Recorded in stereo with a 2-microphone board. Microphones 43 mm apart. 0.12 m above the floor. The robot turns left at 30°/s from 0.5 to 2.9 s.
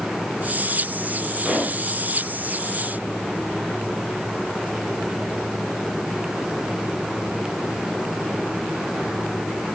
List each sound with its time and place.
1.4 s a pop: 15° right (ahead or behind), 3 m; by 1.8 s 30° right (ahead or behind), 3 m